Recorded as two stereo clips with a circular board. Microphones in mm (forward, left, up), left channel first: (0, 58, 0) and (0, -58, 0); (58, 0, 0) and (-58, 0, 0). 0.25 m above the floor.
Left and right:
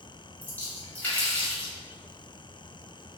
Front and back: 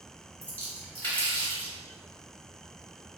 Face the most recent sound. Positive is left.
turn(degrees=45)